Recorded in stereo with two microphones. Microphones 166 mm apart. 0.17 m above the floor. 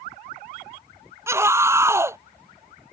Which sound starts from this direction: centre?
A scream, at 1.3 s.